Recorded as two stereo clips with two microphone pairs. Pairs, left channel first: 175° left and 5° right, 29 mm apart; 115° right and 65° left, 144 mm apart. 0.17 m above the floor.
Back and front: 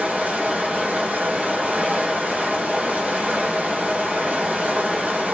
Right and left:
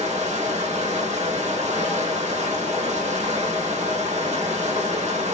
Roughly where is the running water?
Ahead left.